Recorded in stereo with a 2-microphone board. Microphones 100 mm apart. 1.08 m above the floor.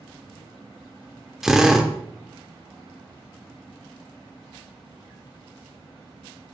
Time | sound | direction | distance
1.4 | a drill | 5° right (ahead or behind) | 1.1 m